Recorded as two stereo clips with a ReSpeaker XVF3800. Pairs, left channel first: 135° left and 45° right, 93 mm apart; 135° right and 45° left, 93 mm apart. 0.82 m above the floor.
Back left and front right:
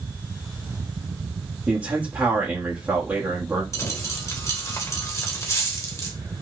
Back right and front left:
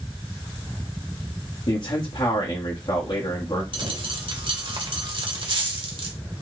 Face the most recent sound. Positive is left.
turn(degrees=80)